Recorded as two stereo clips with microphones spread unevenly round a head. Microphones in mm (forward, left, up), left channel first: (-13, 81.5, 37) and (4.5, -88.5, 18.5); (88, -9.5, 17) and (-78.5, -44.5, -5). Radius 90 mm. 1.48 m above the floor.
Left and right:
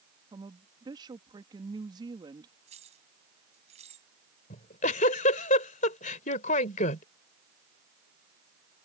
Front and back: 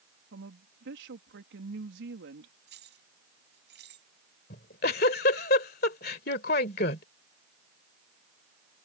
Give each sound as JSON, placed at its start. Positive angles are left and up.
{"t": 0.3, "sound": "a woman speaking", "azimuth_deg": -150}
{"t": 2.7, "sound": "keys jangling", "azimuth_deg": -140}
{"t": 4.5, "sound": "a giggle", "azimuth_deg": 50}